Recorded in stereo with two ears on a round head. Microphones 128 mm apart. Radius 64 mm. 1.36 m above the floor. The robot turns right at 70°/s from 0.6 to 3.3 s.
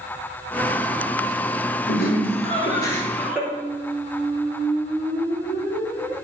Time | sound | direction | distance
1.9 | laughter | 90° left | 4 m
3.5 | a squeak | 5° right (ahead or behind) | 7 m